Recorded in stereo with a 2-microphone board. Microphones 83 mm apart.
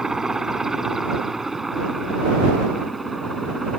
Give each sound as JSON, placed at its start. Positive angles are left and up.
{"t": 0.0, "sound": "a helicopter", "side_deg": -5}